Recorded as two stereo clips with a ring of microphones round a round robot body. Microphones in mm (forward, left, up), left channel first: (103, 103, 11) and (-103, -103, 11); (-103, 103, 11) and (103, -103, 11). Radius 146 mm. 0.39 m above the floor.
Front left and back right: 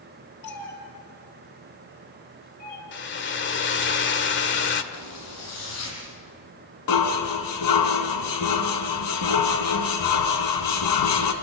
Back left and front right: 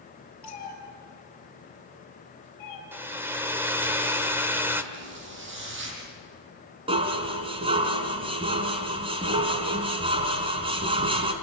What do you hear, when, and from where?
0.4 s a cat meowing: 100° left, 5.5 m; by 2.8 s 105° left, 7 m
2.9 s a hair dryer: 35° left, 1.8 m
4.9 s a zipper: 10° left, 6 m
6.9 s dishes clattering: 25° left, 2.5 m